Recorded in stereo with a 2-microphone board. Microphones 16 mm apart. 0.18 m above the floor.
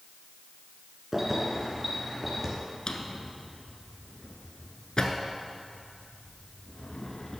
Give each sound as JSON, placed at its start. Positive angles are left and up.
{"t": 1.1, "sound": "keys jangling", "side_deg": -20, "distance_m": 1.6}
{"t": 2.9, "sound": "a drawer", "side_deg": 50, "distance_m": 1.0}